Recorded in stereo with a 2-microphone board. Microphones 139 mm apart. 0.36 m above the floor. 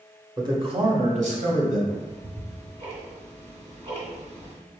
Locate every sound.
0.4 s a man speaking: 25° right (ahead or behind), 0.9 m; by 1.8 s 70° right (ahead or behind), 1.9 m
1.9 s ticking: 55° right (ahead or behind), 1.8 m